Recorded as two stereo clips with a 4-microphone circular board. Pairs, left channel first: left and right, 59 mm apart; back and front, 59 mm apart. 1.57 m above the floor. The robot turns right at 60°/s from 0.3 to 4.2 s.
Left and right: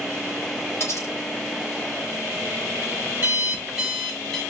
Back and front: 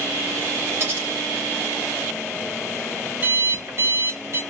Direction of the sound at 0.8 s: 45° left.